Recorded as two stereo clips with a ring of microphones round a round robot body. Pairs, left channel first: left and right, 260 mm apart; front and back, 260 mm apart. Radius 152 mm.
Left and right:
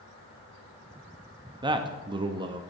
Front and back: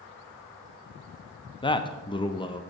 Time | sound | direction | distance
1.6 | a man speaking | 45° right | 0.5 m